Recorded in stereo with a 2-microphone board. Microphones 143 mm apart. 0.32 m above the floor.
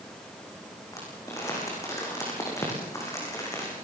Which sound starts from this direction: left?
Crumpling, at 0.9 s.